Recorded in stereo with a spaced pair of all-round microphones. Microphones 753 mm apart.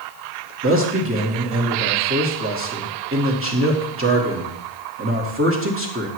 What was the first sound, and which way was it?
A man speaking, 15° right (ahead or behind).